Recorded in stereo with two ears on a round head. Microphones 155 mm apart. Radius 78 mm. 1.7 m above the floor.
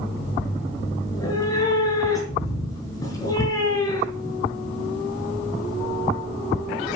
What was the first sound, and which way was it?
A cat meowing, 20° left (ahead or behind).